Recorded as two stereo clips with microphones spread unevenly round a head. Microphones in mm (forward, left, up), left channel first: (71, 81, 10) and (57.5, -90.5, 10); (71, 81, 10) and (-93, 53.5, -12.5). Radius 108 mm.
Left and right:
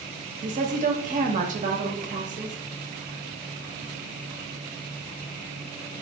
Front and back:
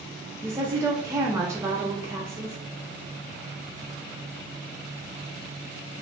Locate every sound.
0.4 s a woman speaking: 110° right, 0.7 m